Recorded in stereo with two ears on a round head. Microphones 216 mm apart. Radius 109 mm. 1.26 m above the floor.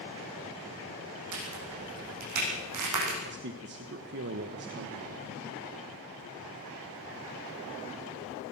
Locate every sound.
1.3 s a crack: 75° right (ahead or behind), 9 m
3.2 s a man speaking: 45° right (ahead or behind), 1.3 m